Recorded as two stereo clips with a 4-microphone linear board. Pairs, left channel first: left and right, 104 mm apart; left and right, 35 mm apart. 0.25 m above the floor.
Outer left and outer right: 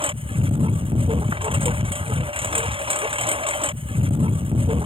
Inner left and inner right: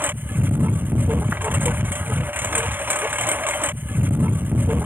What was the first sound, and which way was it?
A lawn mower, 60° right (ahead or behind).